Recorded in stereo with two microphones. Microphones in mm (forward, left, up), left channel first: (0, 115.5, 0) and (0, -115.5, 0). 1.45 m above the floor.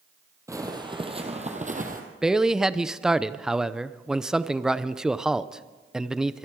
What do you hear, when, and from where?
0.5 s footsteps: 15° right (ahead or behind), 2.5 m; by 2.0 s 35° right (ahead or behind), 2.5 m
2.2 s a man speaking: 5° right (ahead or behind), 0.6 m